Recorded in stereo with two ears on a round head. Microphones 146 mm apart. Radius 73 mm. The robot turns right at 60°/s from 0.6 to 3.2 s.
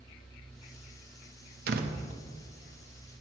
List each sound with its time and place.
1.7 s a door slam: 60° right (ahead or behind), 0.8 m; by 2.0 s 45° right (ahead or behind), 0.8 m